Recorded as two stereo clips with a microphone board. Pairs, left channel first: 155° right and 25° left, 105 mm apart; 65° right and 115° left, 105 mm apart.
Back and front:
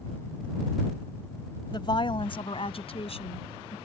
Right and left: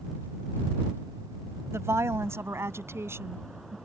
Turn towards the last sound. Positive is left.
turn(degrees=180)